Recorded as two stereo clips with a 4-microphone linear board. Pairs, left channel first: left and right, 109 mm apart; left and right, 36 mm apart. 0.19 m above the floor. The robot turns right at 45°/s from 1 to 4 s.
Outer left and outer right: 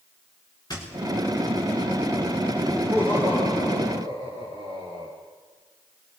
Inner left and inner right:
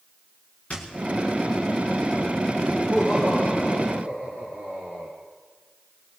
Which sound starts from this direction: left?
A squeak, at 0.7 s.